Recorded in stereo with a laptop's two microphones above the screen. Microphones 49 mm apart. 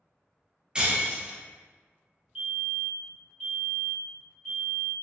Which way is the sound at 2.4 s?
15° right (ahead or behind).